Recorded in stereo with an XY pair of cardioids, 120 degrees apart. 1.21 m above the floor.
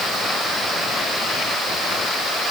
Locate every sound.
Only background noise.